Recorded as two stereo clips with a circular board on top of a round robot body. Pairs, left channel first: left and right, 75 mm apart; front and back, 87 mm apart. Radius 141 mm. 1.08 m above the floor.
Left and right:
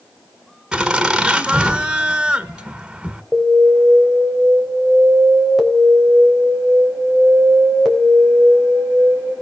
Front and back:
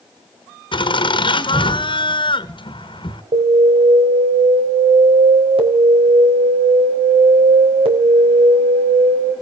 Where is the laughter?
5° right, 1.9 m.